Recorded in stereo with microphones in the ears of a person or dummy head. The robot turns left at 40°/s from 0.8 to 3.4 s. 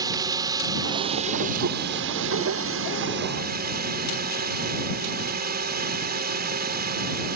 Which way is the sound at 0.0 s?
25° right.